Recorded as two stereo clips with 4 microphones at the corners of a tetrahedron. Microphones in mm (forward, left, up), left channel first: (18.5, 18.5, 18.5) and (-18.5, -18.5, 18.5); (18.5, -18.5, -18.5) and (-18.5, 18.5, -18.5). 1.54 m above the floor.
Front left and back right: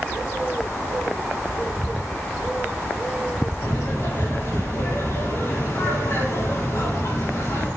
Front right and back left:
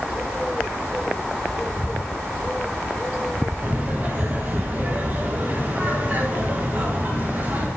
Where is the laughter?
80° left, 5 m.